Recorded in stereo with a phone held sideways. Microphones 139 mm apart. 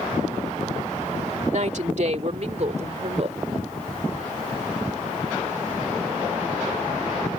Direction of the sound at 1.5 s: 60° right (ahead or behind).